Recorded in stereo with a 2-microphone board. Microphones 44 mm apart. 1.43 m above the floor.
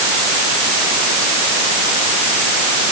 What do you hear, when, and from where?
Only background noise.